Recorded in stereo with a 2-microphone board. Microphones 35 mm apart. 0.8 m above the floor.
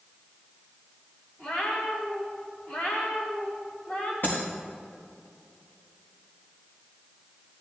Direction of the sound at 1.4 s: 40° left (ahead or behind).